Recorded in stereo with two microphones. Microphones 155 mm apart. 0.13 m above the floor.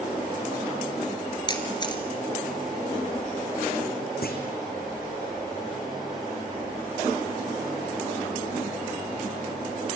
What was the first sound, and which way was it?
A camera shutter, 30° left (ahead or behind).